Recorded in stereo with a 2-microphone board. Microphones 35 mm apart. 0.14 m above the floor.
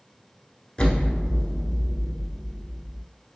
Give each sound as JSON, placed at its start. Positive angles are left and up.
{"t": 0.8, "sound": "an explosion", "side_deg": 25, "distance_m": 0.9}